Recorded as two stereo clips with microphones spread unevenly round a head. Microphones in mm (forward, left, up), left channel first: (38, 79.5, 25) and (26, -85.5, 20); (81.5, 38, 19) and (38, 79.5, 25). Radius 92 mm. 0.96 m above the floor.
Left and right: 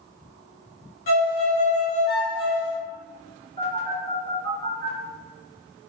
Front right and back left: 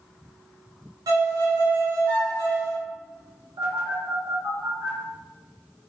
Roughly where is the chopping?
No chopping in this recording.